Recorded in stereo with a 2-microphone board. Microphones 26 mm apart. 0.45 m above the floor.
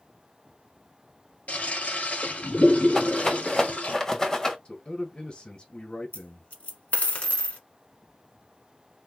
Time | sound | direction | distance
1.5 | a toilet flushing | 80° left | 1.5 m
3.0 | a rattle | 25° left (ahead or behind) | 1.1 m
4.7 | a man speaking | 45° left (ahead or behind) | 1.7 m
6.1 | a dropped coin | 75° left (ahead or behind) | 1.3 m